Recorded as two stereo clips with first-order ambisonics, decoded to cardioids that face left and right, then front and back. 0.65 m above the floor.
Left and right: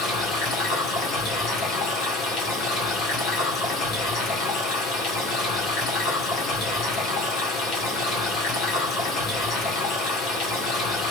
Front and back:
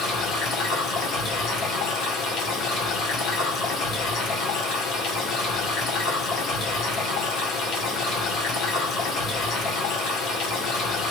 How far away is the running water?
About 1.9 m.